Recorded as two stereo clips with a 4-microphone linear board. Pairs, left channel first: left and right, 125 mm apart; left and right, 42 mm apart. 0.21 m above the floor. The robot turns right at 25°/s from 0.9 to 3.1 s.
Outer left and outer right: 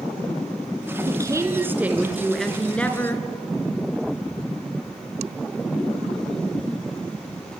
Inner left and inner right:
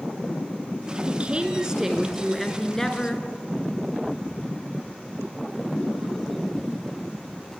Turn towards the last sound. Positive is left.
turn(degrees=20)